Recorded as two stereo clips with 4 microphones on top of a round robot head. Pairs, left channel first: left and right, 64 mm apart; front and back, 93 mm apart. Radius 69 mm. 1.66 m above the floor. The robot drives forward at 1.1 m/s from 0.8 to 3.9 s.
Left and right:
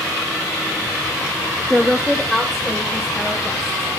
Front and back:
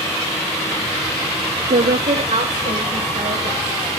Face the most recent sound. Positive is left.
turn(degrees=180)